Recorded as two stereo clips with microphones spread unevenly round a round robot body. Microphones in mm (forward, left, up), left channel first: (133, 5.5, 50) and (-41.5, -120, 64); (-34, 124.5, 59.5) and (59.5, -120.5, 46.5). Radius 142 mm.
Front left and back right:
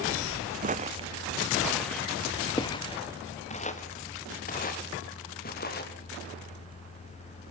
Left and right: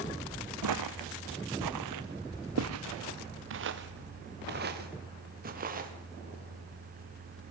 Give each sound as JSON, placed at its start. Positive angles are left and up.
{"t": 0.6, "sound": "footsteps", "azimuth_deg": -95, "distance_m": 1.3}